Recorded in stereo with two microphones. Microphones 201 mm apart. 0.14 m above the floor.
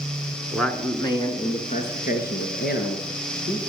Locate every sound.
0.5 s a man speaking: centre (ahead or behind), 1.8 m; by 3.6 s 65° left (ahead or behind), 3.5 m